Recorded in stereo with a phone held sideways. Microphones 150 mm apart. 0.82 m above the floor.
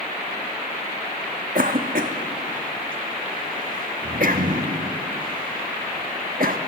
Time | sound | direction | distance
1.6 | a cough | 65° right (ahead or behind) | 1.2 m